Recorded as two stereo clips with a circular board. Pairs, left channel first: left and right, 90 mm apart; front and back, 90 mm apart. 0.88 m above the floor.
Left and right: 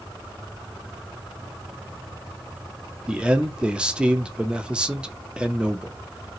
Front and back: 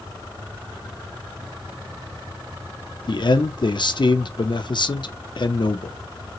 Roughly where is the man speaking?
Ahead.